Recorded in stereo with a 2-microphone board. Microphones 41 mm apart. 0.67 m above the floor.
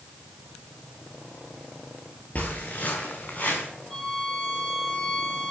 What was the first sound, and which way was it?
Footsteps, 35° left (ahead or behind).